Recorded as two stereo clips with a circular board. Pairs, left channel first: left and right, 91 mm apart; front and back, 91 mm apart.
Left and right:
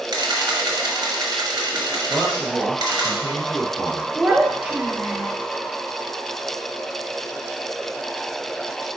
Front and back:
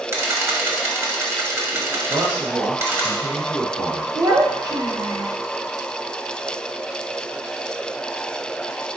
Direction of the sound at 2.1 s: 170° right.